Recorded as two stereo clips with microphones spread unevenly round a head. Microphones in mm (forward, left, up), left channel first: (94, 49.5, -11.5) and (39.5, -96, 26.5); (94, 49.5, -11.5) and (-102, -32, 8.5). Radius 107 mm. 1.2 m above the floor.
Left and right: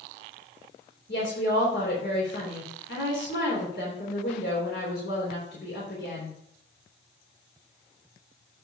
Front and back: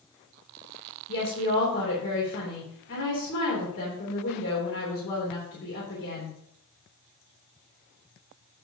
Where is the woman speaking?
50° left, 3 m.